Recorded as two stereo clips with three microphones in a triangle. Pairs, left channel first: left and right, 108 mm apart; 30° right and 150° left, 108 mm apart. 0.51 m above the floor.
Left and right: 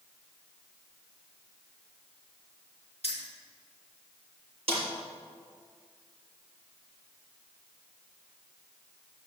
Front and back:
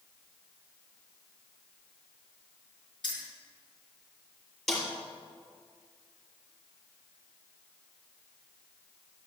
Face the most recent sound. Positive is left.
turn(degrees=-115)